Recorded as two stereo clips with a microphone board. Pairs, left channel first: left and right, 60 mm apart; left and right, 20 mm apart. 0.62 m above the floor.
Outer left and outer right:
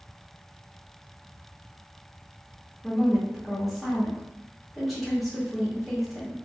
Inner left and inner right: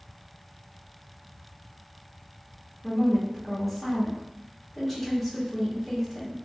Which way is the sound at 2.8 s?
Centre (ahead or behind).